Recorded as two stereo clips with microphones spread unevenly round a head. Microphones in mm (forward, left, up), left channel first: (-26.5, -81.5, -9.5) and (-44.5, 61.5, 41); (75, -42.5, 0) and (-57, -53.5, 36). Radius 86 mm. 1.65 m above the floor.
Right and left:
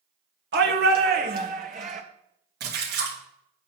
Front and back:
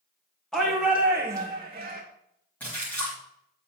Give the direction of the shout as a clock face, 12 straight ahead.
9 o'clock.